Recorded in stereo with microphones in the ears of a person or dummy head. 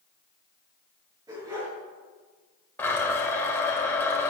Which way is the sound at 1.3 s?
20° right (ahead or behind).